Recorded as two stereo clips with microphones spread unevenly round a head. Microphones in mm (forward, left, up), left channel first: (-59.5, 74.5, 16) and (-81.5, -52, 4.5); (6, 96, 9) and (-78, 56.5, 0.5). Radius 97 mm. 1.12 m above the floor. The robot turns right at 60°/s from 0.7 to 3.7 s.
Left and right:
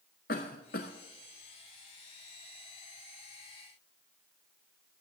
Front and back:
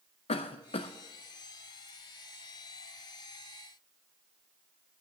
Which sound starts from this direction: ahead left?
A cough, at 0.3 s.